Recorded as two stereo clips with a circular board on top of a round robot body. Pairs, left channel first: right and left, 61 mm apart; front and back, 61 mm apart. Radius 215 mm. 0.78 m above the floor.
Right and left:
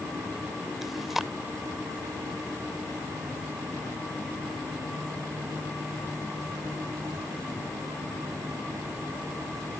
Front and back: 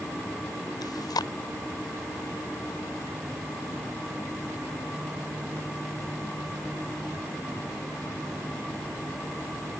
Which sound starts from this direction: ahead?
Chewing, at 0.8 s.